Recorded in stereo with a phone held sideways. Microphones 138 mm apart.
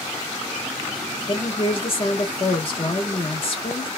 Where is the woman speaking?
45° left (ahead or behind), 1.1 m.